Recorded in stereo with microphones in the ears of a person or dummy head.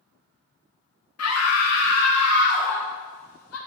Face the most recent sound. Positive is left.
turn(degrees=85)